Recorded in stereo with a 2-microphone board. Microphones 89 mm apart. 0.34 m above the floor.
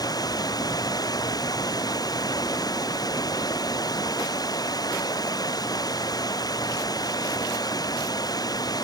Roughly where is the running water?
Left.